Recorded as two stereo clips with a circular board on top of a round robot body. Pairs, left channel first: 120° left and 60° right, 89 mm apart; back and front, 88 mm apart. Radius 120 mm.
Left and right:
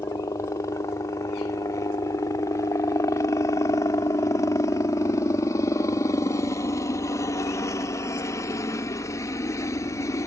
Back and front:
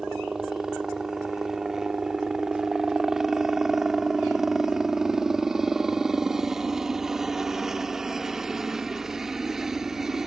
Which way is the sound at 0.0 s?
85° left.